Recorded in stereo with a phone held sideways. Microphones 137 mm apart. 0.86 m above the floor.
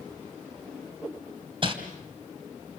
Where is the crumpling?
40° right (ahead or behind), 2.5 m.